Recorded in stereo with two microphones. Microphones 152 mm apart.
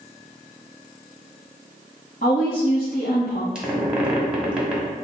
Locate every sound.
2.2 s a woman speaking: 60° left (ahead or behind), 1.0 m
3.5 s a squeak: 5° right (ahead or behind), 1.2 m